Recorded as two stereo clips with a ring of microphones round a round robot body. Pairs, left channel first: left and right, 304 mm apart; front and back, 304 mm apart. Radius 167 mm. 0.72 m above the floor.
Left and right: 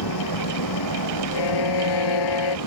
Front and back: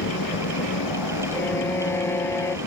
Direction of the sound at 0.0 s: 50° left.